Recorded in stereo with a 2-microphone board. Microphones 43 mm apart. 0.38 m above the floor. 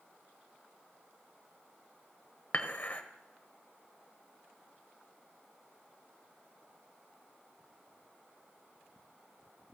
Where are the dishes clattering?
40° left (ahead or behind), 1.1 m.